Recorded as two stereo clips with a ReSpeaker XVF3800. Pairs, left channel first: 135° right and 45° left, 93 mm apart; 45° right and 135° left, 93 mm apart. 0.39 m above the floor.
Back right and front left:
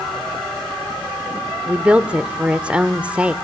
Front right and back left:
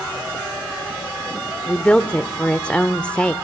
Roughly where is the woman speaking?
Ahead.